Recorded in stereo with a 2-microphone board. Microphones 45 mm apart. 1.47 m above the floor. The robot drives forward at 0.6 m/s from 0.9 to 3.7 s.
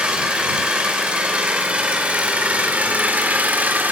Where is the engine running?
25° right (ahead or behind), 4.5 m; by 3.9 s 40° right (ahead or behind), 3 m.